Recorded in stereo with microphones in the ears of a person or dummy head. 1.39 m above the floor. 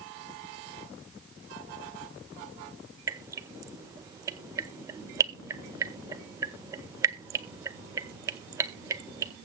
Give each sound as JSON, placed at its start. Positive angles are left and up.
{"t": 3.1, "sound": "dripping", "side_deg": -20, "distance_m": 0.5}